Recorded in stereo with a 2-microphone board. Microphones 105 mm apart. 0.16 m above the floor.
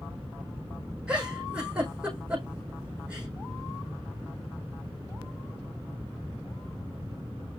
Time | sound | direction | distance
1.1 | a giggle | 10° right (ahead or behind) | 5 m